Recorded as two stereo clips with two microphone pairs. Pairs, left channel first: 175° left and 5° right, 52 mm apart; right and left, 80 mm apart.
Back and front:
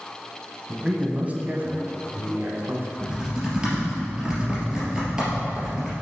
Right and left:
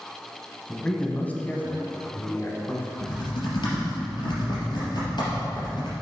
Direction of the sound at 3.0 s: 75° right.